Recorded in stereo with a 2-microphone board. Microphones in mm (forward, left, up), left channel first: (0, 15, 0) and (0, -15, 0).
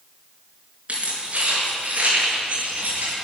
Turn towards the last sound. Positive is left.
turn(degrees=-50)  # may be behind; listen again after turning